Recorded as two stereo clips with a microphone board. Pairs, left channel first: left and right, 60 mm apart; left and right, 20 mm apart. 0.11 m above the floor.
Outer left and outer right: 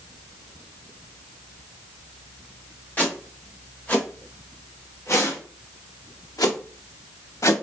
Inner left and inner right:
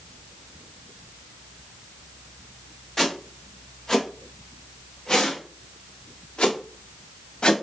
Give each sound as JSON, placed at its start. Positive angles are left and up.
{"t": 3.0, "sound": "footsteps", "side_deg": 25, "distance_m": 3.0}